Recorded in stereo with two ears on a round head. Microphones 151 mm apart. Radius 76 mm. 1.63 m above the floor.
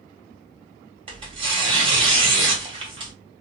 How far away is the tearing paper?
About 1.2 m.